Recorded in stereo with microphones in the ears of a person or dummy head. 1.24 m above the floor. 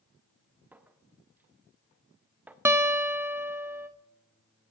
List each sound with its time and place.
0.7 s a clink: 5° right (ahead or behind), 0.5 m
2.6 s a guitar: 10° right (ahead or behind), 0.7 m